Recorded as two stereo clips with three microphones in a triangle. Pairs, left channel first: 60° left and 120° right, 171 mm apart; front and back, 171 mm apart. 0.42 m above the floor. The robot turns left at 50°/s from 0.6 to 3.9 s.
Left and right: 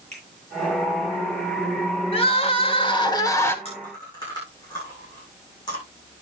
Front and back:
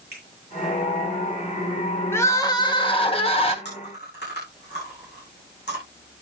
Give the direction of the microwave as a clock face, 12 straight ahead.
I don't hear a microwave.